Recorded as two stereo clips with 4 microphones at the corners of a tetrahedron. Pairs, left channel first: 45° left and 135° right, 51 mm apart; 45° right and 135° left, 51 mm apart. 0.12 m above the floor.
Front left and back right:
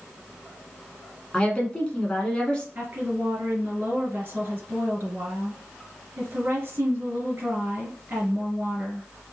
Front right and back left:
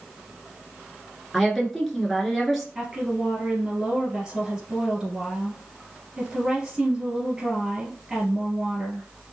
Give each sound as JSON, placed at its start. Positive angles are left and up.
{"t": 1.3, "sound": "a woman speaking", "azimuth_deg": 40, "distance_m": 1.1}
{"t": 2.8, "sound": "a woman speaking", "azimuth_deg": -150, "distance_m": 2.5}